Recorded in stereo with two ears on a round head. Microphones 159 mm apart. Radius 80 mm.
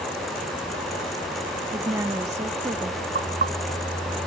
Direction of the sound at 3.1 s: 45° right (ahead or behind).